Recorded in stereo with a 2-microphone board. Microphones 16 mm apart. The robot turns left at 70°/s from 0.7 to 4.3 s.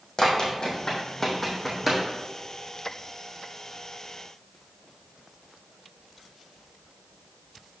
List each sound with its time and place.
0.2 s running footsteps: 40° left (ahead or behind), 2.5 m; by 2.0 s 25° right (ahead or behind), 2.5 m